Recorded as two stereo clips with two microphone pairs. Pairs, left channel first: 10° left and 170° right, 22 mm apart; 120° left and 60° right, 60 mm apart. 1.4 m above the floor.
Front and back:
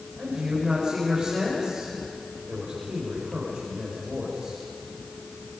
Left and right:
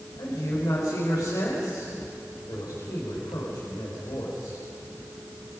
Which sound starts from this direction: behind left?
A man speaking, at 0.2 s.